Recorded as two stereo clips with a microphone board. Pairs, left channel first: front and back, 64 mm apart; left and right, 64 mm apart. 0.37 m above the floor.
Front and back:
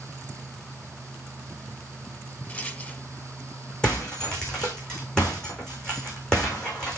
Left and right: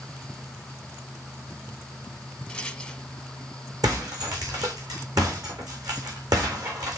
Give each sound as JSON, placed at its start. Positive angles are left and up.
{"t": 2.5, "sound": "a rattle", "azimuth_deg": 30, "distance_m": 1.2}
{"t": 3.8, "sound": "breaking glass", "azimuth_deg": -75, "distance_m": 4.0}